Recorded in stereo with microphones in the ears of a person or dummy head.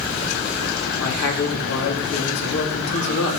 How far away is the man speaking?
About 4 m.